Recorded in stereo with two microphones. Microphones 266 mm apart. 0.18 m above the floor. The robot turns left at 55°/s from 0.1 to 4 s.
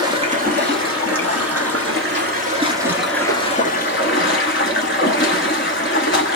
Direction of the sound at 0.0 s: 20° right.